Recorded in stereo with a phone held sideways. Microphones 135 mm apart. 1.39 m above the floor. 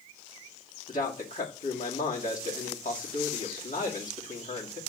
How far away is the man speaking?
About 2.5 m.